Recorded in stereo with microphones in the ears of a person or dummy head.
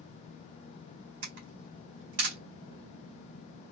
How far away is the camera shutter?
About 1.5 m.